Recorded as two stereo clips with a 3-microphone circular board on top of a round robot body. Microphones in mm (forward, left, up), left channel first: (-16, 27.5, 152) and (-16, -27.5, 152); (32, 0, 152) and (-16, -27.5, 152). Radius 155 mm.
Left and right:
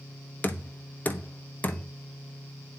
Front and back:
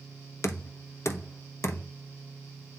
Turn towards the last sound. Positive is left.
turn(degrees=40)